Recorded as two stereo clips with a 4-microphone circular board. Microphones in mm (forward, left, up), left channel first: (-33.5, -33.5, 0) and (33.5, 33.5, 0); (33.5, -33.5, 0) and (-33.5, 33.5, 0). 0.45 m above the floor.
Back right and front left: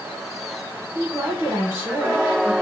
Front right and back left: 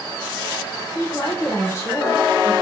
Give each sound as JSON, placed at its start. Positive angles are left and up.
{"t": 0.9, "sound": "a woman speaking", "azimuth_deg": -10, "distance_m": 1.3}